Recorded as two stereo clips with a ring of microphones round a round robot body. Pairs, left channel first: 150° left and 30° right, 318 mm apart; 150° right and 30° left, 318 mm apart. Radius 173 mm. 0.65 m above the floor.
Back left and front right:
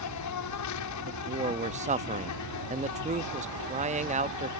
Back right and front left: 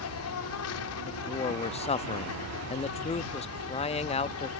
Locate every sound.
0.0 s an insect: 175° left
1.1 s a man speaking: 90° right